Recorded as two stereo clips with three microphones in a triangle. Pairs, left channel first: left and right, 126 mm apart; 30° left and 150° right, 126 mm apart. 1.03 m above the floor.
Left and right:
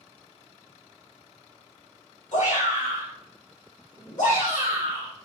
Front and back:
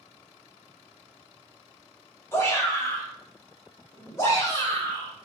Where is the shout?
95° left, 2 m.